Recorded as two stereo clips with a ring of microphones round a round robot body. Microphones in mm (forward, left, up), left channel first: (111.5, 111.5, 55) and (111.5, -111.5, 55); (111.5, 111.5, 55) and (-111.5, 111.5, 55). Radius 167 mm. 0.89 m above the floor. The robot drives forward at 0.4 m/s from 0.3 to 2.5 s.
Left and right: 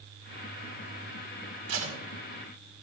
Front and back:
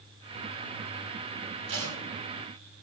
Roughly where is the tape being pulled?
Behind right.